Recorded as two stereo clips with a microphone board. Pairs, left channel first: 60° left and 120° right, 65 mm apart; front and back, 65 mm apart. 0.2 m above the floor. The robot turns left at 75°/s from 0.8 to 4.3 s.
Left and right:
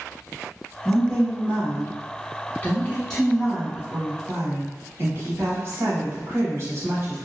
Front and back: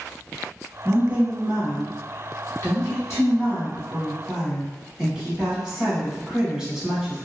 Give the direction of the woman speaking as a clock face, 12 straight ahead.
7 o'clock.